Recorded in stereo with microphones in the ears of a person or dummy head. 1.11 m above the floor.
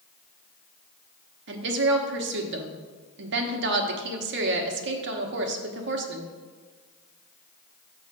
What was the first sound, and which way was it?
A woman speaking, 60° right (ahead or behind).